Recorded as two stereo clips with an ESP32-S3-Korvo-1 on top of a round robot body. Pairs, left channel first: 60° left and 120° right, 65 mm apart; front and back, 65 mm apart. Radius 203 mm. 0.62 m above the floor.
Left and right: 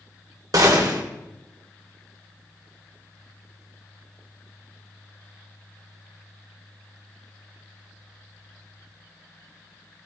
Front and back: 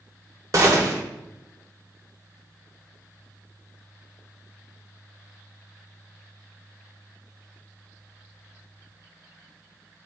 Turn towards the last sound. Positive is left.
turn(degrees=-145)